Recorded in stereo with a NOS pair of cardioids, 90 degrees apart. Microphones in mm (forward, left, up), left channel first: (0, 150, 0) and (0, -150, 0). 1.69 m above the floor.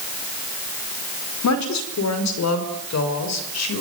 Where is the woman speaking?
65° left, 4.5 m; by 3.8 s 60° left, 6 m.